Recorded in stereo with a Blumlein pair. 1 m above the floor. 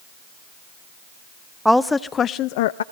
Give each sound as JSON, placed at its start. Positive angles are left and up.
{"t": 1.6, "sound": "a woman speaking", "azimuth_deg": 0, "distance_m": 0.7}